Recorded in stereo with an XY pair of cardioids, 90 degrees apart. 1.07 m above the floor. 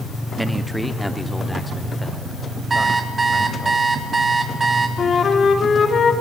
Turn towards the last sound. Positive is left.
turn(degrees=55)